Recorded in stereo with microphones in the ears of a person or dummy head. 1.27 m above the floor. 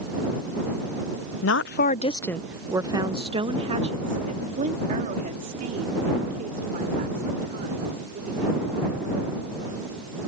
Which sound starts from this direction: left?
A woman speaking, at 1.4 s.